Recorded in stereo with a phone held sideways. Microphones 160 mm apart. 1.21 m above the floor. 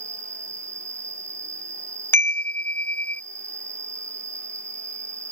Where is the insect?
20° right (ahead or behind).